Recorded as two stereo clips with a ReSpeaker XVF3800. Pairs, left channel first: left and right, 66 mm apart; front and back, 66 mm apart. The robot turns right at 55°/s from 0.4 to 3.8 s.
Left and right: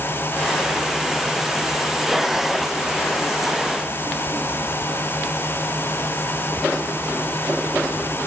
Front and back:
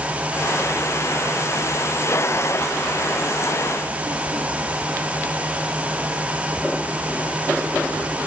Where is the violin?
No violin in this recording.